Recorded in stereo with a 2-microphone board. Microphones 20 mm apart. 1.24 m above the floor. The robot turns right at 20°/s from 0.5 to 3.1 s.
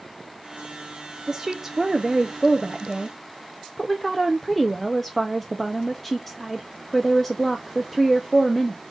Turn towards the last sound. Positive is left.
turn(degrees=15)